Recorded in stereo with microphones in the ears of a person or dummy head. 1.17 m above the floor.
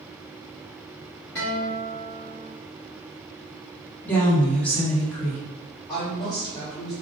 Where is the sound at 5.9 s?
20° left (ahead or behind), 1.1 m.